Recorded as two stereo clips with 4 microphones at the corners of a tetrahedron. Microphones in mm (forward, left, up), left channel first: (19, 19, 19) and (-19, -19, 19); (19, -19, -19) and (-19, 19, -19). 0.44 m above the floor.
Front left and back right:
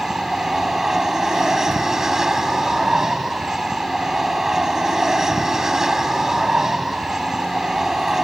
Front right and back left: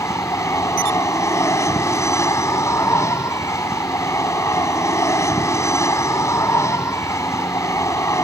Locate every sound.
0.0 s an aircraft: 55° right